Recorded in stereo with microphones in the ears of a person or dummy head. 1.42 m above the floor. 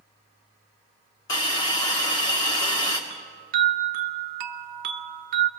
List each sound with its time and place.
1.3 s a hiss: 25° left (ahead or behind), 1.6 m
3.1 s a chime: 55° right (ahead or behind), 0.9 m